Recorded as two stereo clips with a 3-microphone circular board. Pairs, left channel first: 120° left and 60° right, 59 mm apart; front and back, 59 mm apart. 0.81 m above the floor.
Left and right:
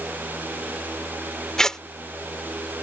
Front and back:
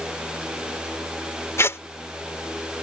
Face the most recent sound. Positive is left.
turn(degrees=40)